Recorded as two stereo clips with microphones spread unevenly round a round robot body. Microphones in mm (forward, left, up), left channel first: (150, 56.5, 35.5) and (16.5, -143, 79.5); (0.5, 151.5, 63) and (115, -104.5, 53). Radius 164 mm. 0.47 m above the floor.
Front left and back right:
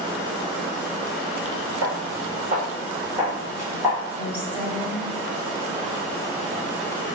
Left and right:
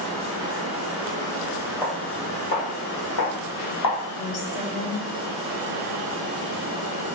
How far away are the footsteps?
About 0.8 m.